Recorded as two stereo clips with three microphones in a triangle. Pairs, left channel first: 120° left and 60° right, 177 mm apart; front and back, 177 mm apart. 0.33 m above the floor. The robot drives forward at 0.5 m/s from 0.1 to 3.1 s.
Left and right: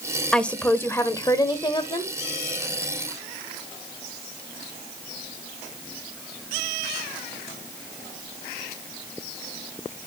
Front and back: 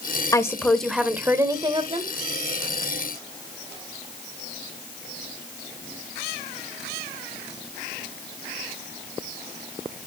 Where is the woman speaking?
40° left, 0.9 m; by 2.1 s 160° left, 1.1 m.